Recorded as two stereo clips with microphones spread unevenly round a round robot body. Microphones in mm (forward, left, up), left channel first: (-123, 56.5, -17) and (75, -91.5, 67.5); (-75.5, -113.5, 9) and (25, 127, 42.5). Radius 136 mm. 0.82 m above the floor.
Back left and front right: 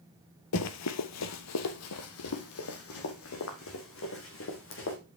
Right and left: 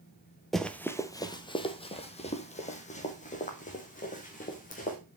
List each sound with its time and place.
0.5 s running footsteps: 145° left, 0.9 m; by 5.0 s 175° right, 3.5 m